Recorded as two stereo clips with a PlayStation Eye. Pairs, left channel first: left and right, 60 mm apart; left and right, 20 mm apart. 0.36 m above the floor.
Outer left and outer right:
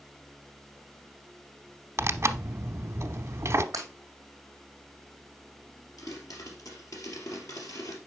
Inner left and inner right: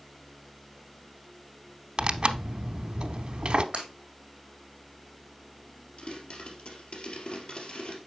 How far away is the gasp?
No gasp in this recording.